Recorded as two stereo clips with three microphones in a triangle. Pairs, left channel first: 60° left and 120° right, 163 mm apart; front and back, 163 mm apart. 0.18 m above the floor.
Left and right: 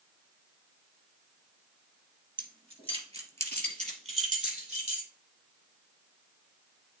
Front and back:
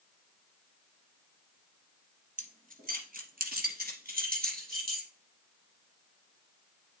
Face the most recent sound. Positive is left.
turn(degrees=-160)